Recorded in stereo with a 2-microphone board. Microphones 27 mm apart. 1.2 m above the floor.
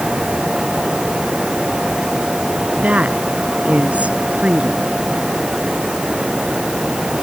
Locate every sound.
2.8 s a woman speaking: 55° right (ahead or behind)